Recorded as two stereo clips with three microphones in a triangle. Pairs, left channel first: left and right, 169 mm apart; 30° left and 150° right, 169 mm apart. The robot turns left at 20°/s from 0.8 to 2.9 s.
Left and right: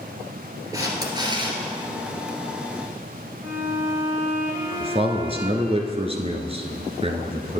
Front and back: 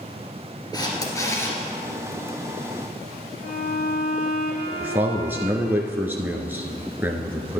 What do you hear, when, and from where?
0.7 s a camera shutter: 25° right, 2 m; by 1.6 s 45° right, 2 m
3.4 s a violin: 10° right, 2 m
4.8 s a man speaking: 80° right, 1.3 m